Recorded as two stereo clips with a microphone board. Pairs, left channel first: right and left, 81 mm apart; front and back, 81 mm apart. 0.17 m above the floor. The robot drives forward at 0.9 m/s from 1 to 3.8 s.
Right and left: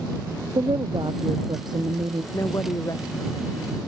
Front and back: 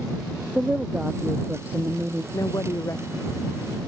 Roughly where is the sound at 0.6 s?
Left.